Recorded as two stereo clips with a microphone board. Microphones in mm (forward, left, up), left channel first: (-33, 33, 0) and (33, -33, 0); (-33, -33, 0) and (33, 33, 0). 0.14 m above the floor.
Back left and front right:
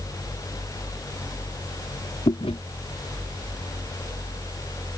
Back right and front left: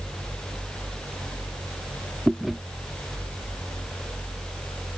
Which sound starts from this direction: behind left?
Chewing, at 2.3 s.